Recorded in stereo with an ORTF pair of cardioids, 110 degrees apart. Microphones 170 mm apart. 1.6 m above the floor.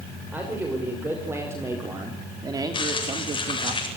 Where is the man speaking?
10° right, 6 m; by 3.7 s 40° right, 2.5 m.